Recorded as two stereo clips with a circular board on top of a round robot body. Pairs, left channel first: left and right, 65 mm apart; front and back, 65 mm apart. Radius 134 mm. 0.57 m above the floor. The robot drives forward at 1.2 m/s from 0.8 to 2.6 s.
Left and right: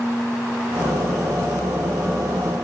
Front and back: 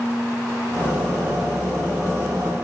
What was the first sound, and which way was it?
Only background noise.